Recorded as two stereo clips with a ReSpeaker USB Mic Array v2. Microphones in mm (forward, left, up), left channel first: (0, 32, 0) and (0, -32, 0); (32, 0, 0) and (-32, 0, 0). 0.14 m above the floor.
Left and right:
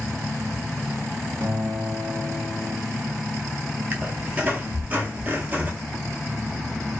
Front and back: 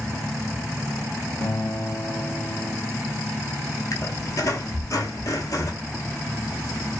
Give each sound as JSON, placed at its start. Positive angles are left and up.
{"t": 1.4, "sound": "a guitar", "azimuth_deg": -45, "distance_m": 0.8}
{"t": 3.9, "sound": "a squeak", "azimuth_deg": -30, "distance_m": 0.7}